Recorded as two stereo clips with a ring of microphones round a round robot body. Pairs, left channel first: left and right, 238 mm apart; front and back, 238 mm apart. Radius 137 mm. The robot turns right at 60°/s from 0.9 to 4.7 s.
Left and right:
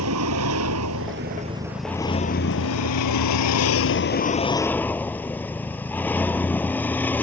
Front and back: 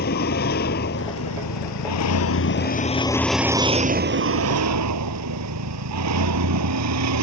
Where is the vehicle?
55° right; by 7.2 s 170° left.